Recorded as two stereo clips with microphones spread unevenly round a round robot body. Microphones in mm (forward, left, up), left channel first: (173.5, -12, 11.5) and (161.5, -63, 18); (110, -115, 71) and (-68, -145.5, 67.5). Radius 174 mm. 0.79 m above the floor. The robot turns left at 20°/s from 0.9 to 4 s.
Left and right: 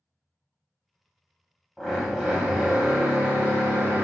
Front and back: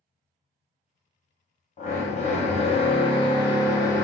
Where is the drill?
5° right, 1.1 m; by 4.0 s 50° right, 1.1 m.